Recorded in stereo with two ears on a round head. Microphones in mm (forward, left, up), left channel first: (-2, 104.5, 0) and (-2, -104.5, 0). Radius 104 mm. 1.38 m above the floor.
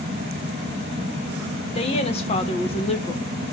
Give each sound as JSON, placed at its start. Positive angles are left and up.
{"t": 1.8, "sound": "a woman speaking", "side_deg": 30, "distance_m": 1.6}